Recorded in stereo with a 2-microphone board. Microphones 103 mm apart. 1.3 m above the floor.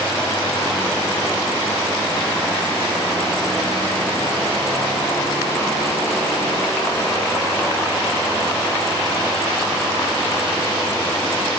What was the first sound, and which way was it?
Only background noise.